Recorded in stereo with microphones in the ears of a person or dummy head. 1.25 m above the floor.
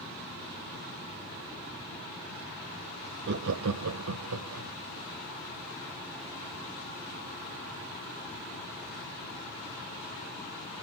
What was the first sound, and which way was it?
Laughter, 55° right (ahead or behind).